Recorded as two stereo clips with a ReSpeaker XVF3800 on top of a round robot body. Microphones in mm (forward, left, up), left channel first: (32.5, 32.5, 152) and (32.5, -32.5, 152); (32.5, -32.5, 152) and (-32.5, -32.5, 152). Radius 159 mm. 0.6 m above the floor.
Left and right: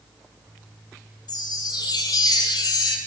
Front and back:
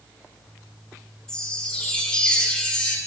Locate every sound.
1.3 s a chime: 80° left, 1.5 m